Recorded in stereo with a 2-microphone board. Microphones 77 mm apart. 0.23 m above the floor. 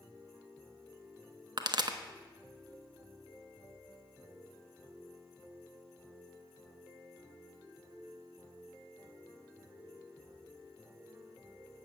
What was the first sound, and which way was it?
A pop, 65° right (ahead or behind).